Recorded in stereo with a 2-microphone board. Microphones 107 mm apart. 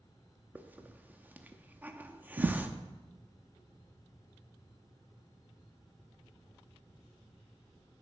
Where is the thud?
50° right (ahead or behind), 0.7 m.